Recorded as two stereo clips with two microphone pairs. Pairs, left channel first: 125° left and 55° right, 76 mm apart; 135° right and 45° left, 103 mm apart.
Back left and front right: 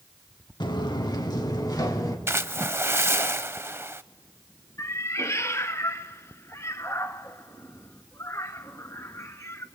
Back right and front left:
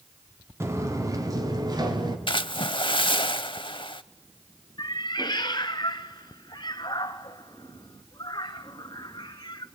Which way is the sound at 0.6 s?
110° left.